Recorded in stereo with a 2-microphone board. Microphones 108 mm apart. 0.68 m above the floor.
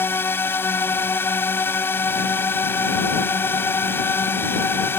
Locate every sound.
0.0 s a drone: 20° left (ahead or behind)